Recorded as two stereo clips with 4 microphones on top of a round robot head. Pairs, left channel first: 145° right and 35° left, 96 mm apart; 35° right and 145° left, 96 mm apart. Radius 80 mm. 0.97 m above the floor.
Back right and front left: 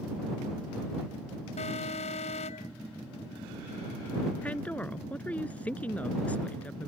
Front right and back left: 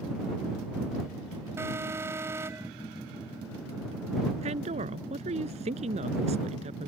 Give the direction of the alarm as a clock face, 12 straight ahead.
5 o'clock.